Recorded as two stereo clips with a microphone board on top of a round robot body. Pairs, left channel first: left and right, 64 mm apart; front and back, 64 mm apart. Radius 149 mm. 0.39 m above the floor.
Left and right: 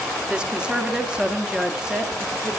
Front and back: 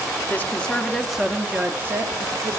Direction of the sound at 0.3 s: 25° right.